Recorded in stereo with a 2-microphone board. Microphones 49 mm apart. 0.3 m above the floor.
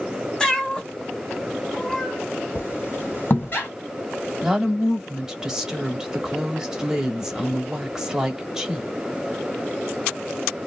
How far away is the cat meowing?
About 1.0 m.